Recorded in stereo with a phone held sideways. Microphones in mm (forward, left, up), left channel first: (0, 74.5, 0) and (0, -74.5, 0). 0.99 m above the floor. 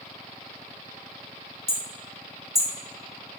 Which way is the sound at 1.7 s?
75° left (ahead or behind).